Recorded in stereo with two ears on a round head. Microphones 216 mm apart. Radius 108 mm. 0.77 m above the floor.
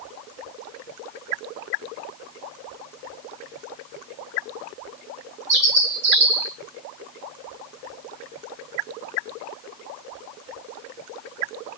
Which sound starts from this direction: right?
A bird, at 5.5 s.